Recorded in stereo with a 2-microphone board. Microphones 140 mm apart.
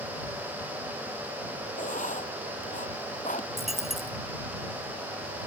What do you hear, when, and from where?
1.8 s writing: 65° left (ahead or behind)
3.6 s a dropped coin: centre (ahead or behind)